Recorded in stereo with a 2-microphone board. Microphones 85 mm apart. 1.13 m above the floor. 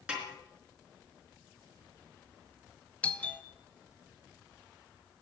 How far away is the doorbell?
About 0.7 m.